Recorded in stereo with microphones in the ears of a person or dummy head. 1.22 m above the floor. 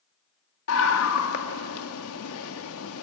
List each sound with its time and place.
0.7 s a scream: 75° left (ahead or behind), 1.9 m